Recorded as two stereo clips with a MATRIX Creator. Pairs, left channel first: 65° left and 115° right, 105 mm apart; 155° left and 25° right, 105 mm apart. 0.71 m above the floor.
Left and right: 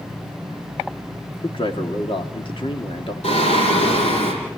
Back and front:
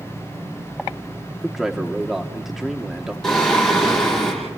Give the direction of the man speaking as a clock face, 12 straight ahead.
10 o'clock.